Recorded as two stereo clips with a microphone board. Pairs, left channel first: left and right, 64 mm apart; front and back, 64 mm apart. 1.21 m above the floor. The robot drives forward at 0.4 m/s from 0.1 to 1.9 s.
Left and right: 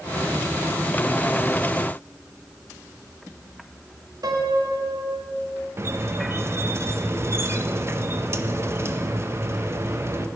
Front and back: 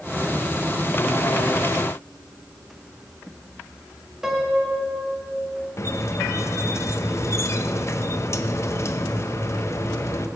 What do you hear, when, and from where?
4.2 s a piano: 100° right, 1.3 m
5.8 s a squeak: 45° right, 0.7 m